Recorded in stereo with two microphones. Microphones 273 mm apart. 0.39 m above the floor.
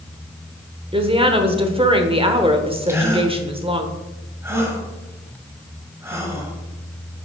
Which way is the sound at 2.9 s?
10° right (ahead or behind).